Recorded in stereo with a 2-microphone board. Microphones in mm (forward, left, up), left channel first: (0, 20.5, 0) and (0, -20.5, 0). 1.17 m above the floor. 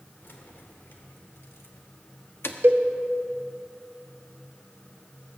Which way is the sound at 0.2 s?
55° left (ahead or behind).